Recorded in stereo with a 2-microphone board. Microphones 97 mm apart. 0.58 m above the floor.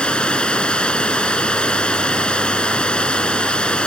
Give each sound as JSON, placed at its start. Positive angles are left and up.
{"t": 0.0, "sound": "running water", "side_deg": 10}